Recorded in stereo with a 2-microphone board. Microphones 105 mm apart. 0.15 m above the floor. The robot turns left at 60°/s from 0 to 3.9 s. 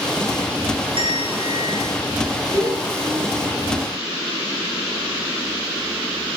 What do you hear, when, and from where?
1.0 s a bell: 85° right, 1.6 m; by 1.9 s 140° right, 1.6 m
2.5 s a child speaking: 55° right, 1.3 m; by 3.9 s 135° right, 1.3 m